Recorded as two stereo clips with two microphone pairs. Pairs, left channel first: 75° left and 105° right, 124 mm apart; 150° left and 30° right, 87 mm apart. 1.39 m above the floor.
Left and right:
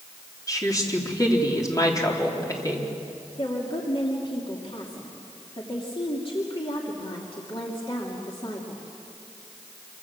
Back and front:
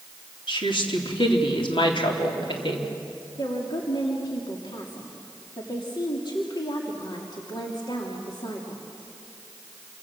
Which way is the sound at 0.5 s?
135° left.